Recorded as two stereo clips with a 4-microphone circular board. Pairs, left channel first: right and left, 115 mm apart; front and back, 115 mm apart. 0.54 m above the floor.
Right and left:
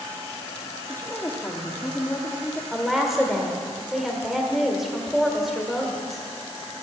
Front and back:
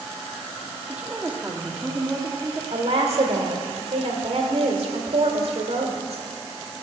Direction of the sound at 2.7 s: Straight behind.